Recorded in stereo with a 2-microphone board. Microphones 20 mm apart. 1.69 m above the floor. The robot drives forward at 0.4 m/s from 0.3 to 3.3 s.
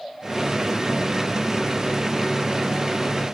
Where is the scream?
No scream in this recording.